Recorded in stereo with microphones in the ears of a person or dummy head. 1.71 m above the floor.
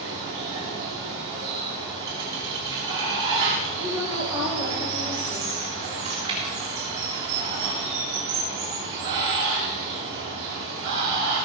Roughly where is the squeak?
I don't hear a squeak.